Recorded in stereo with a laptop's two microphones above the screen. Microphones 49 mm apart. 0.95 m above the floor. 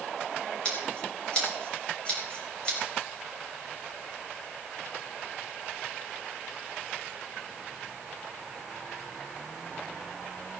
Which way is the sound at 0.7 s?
25° left (ahead or behind).